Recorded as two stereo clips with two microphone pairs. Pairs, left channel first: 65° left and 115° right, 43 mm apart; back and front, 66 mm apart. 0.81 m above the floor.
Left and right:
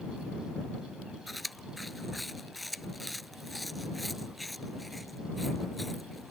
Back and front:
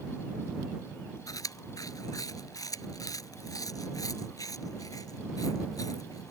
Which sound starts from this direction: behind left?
Chewing, at 1.3 s.